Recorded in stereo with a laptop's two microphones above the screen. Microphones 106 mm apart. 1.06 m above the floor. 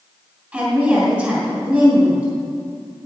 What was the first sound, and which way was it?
A woman speaking, 20° right (ahead or behind).